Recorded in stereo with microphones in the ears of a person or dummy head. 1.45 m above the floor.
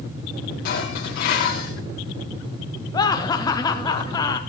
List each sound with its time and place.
0.7 s dishes clattering: 60° left (ahead or behind), 2 m
2.9 s laughter: 25° left (ahead or behind), 0.5 m